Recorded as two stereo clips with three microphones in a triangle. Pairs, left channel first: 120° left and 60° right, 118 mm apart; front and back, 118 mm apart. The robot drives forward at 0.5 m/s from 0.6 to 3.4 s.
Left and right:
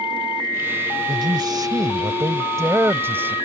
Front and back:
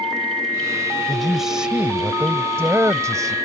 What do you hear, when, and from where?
1.1 s a man speaking: 85° right; by 3.4 s 130° right